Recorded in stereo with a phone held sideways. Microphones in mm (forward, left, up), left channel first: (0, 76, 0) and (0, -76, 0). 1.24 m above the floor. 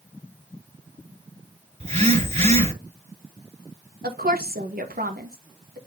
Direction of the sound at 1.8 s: 45° right (ahead or behind).